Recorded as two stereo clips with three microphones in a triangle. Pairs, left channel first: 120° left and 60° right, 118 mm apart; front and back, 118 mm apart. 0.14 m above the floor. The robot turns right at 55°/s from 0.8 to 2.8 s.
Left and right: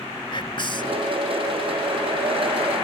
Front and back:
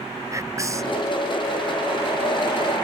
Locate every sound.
0.3 s whispering: 130° left; by 1.0 s 145° left